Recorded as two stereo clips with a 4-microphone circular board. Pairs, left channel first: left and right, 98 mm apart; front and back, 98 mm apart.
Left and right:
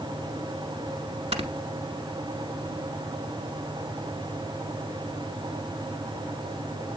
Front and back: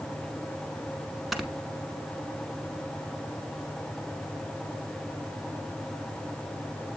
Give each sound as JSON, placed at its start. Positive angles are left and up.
{"t": 1.3, "sound": "snoring", "azimuth_deg": -90, "distance_m": 0.8}